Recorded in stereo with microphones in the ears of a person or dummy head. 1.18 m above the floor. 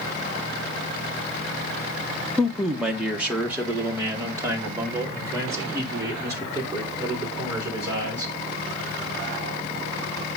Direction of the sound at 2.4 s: 5° left (ahead or behind).